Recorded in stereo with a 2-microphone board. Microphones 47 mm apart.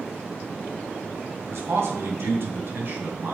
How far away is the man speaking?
About 2.5 m.